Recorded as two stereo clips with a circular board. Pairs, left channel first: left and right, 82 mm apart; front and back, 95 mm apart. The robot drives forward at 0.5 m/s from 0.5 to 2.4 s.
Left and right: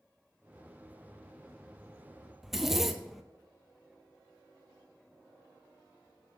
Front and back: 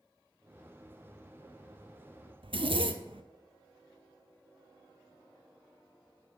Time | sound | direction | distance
2.4 | a zipper | 175° right | 0.6 m